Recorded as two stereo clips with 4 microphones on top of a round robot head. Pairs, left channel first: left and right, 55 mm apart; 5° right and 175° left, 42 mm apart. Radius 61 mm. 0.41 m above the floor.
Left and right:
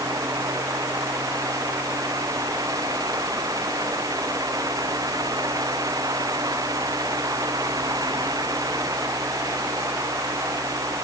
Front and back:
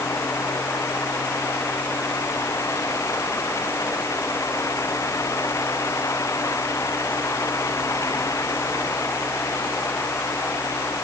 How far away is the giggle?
No giggle in this recording.